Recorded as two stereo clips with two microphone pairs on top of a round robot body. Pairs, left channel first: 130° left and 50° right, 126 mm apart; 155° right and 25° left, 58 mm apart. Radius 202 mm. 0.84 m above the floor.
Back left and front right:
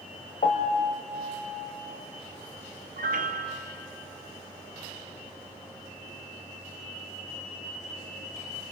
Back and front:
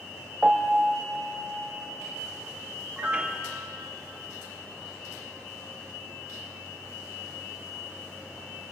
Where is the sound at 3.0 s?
45° right, 1.4 m.